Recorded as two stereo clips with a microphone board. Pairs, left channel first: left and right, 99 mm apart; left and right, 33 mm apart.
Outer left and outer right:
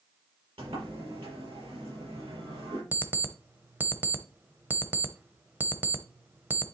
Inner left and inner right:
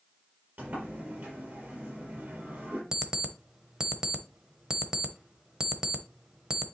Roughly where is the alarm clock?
Centre.